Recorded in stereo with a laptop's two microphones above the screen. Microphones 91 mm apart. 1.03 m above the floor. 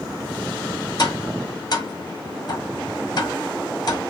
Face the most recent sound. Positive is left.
turn(degrees=50)  # may be behind; listen again after turning